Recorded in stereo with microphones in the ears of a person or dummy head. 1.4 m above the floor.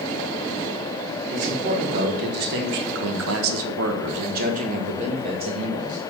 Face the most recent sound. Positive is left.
turn(degrees=-20)  # may be behind; listen again after turning